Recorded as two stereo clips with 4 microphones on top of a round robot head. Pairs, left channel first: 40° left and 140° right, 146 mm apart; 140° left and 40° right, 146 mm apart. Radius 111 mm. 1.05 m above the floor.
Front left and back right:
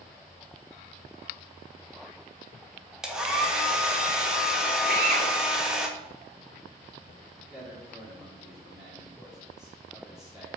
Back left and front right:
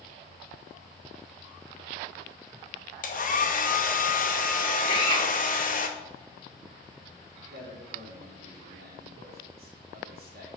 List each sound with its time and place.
3.0 s a hair dryer: 135° left, 1.3 m
4.9 s a drill: 165° right, 2 m
7.5 s a man speaking: 50° right, 3 m